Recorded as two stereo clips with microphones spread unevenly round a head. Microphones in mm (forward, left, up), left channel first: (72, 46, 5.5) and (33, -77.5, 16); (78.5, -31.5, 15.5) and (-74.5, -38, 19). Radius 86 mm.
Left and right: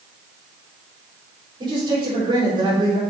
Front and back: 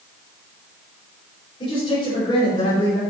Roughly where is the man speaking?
Ahead right.